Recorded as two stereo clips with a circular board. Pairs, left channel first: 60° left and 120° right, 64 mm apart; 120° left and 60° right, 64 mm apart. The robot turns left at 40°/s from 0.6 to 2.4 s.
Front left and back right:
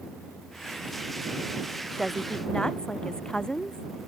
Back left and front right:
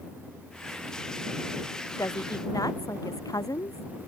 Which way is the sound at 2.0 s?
155° left.